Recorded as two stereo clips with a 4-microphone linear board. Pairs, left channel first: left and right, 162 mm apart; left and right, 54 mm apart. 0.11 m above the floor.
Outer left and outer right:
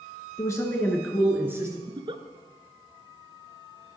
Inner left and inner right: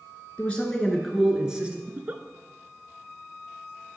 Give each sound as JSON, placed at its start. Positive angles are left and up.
{"t": 0.4, "sound": "a man speaking", "side_deg": 25, "distance_m": 1.4}
{"t": 1.9, "sound": "a giggle", "side_deg": -35, "distance_m": 0.6}